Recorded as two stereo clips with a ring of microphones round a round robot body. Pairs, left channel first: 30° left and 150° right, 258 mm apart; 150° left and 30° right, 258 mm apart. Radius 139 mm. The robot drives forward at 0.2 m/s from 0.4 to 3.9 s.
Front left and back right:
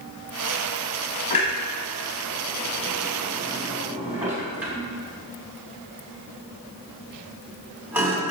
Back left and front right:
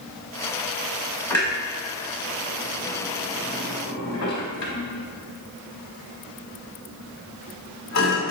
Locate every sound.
1.3 s a clunk: 75° left, 0.9 m; by 8.3 s 130° left, 0.9 m